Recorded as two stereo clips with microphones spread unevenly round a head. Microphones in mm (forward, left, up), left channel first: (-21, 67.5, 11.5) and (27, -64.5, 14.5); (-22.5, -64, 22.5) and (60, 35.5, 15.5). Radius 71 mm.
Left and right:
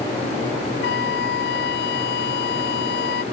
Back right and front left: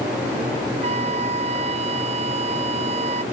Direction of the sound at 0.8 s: 100° left.